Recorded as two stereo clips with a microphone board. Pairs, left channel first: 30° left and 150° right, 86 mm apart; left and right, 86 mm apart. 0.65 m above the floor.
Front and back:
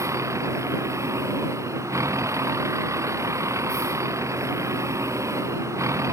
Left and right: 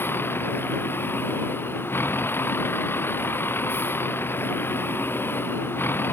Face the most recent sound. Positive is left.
turn(degrees=155)